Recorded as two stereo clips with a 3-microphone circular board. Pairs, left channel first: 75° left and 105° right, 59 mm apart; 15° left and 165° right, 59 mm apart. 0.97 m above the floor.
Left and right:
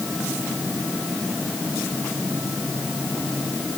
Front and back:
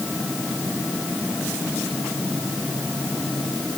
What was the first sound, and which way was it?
Only background noise.